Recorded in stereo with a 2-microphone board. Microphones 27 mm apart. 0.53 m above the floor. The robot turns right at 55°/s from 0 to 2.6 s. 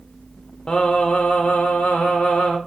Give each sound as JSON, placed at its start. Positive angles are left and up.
{"t": 0.7, "sound": "singing", "azimuth_deg": 35, "distance_m": 0.5}